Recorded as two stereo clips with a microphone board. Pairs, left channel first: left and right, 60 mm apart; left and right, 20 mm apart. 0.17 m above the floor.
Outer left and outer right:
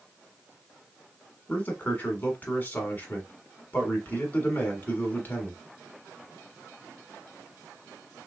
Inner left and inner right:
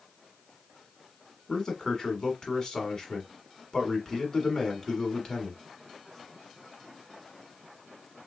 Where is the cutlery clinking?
No cutlery clinking in this recording.